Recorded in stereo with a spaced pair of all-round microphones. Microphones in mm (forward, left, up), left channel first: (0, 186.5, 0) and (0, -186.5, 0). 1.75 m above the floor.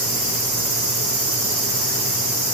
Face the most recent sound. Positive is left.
No sound to turn to.